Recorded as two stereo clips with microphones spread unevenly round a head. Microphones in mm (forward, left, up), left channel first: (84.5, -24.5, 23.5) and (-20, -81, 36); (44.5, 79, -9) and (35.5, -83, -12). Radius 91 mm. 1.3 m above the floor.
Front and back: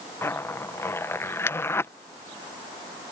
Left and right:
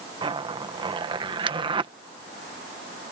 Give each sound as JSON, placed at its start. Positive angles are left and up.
{"t": 0.2, "sound": "a zipper", "azimuth_deg": -35}